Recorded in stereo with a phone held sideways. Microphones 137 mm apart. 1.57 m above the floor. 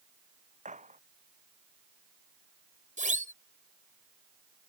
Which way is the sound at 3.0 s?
65° right (ahead or behind).